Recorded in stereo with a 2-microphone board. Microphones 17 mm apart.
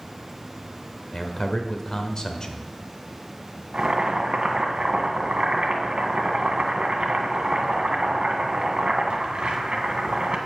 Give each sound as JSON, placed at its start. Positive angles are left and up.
{"t": 1.1, "sound": "a man speaking", "side_deg": 35, "distance_m": 1.3}
{"t": 3.7, "sound": "boiling", "side_deg": -80, "distance_m": 1.7}